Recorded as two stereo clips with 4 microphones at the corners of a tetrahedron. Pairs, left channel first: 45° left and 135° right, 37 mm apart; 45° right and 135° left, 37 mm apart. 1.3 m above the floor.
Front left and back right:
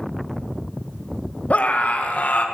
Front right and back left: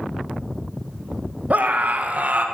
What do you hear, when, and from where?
1.5 s a scream: 90° left, 1.5 m